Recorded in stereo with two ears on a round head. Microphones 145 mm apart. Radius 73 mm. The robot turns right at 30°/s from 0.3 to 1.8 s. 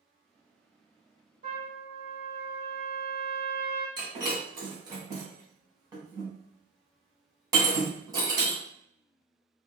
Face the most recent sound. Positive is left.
turn(degrees=-25)  # may be behind; listen again after turning